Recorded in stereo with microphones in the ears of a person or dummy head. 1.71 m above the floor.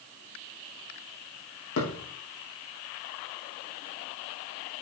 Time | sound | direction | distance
1.8 | a thud | 65° left (ahead or behind) | 4.5 m